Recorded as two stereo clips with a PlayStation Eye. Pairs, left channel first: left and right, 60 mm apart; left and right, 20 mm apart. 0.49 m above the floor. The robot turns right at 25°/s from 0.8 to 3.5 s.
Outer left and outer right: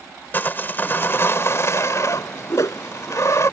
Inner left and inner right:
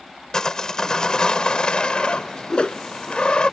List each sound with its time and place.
0.3 s sawing: 40° left; by 3.5 s 110° left
2.5 s a whoosh: 60° left (ahead or behind); by 2.8 s 65° left (ahead or behind)